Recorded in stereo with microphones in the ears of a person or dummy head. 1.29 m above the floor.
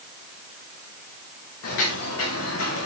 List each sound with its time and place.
1.6 s footsteps: 65° left (ahead or behind), 5 m; by 2.9 s 70° left (ahead or behind), 4.5 m